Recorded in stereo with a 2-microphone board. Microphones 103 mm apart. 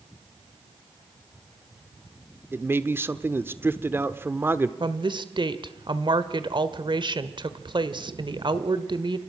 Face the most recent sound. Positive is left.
turn(degrees=-50)  # may be behind; listen again after turning